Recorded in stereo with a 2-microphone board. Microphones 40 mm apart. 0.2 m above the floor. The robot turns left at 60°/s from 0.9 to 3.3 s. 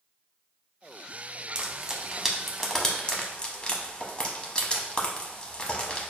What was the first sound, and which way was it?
Frying, 25° right (ahead or behind).